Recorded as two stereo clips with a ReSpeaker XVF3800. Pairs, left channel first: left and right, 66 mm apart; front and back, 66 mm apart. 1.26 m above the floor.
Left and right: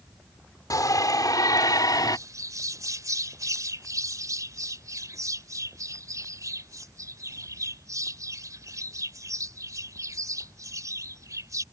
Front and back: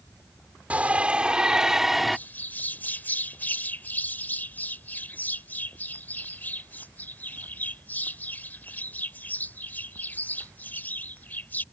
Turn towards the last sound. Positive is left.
turn(degrees=-60)